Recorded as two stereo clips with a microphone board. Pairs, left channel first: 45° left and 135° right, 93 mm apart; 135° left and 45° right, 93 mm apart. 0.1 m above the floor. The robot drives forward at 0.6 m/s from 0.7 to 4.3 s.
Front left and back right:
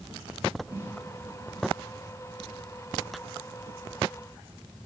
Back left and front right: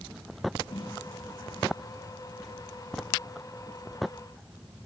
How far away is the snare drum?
About 10 m.